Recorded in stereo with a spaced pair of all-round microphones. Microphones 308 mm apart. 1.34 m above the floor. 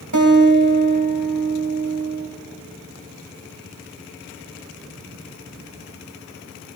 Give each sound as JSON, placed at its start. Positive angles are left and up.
{"t": 0.1, "sound": "a guitar", "side_deg": -65, "distance_m": 2.5}